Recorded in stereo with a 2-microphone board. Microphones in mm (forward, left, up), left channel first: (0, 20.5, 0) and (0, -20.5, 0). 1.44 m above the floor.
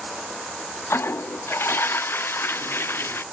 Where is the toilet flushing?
65° left (ahead or behind).